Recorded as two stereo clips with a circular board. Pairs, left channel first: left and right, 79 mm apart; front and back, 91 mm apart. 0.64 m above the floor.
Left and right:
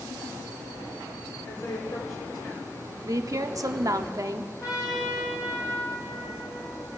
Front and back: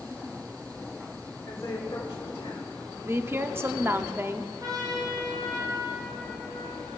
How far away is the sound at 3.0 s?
About 0.9 m.